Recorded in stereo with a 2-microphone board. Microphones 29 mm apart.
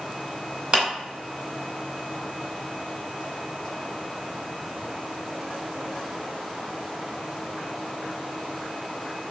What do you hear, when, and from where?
0.7 s a clap: 40° right (ahead or behind), 2 m